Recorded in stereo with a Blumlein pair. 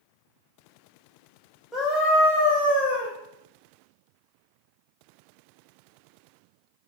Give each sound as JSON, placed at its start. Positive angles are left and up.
{"t": 1.7, "sound": "a scream", "azimuth_deg": 5, "distance_m": 0.5}